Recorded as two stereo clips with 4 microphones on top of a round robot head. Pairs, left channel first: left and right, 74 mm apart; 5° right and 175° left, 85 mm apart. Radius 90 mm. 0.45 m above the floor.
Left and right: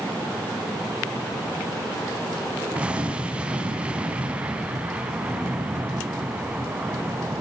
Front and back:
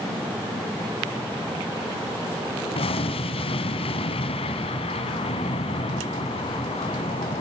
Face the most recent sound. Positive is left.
turn(degrees=-10)